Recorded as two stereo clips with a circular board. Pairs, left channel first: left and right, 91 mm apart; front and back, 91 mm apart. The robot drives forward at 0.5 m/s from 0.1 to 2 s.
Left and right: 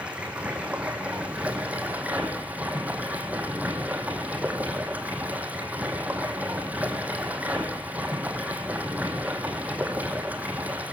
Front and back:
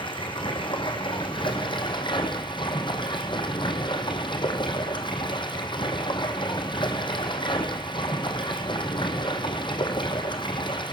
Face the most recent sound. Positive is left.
turn(degrees=-20)